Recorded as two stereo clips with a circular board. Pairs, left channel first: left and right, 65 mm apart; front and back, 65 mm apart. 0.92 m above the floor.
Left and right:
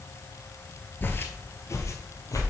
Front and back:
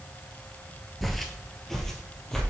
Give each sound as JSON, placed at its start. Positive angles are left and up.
{"t": 1.0, "sound": "footsteps", "azimuth_deg": 85, "distance_m": 1.0}